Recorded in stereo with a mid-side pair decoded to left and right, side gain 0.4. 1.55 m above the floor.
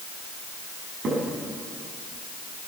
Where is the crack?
65° right, 7.5 m.